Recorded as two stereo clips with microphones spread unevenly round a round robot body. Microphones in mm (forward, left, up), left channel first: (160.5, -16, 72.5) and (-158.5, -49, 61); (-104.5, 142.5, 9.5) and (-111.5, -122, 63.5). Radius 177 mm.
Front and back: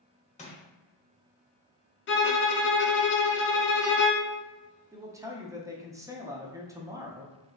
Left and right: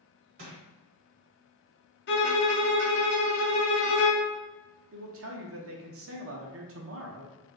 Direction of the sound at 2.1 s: 60° left.